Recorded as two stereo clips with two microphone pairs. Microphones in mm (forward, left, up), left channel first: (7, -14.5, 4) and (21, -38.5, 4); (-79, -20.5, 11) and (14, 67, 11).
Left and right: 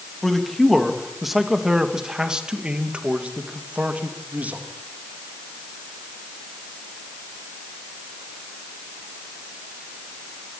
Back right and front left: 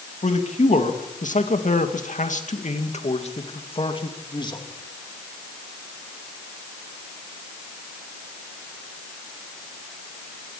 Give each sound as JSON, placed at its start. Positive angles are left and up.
{"t": 0.2, "sound": "a man speaking", "azimuth_deg": -160, "distance_m": 3.0}